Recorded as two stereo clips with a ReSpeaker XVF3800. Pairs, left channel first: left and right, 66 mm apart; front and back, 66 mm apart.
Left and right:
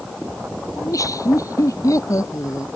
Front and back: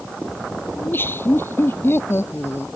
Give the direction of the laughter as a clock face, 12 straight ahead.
10 o'clock.